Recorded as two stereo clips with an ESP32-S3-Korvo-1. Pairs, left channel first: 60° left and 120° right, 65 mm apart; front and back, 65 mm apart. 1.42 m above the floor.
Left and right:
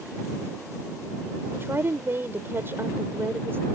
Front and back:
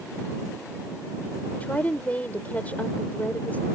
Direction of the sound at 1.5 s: 65° right.